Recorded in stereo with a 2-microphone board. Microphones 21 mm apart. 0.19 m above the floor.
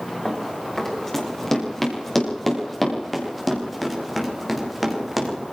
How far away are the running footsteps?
About 9 m.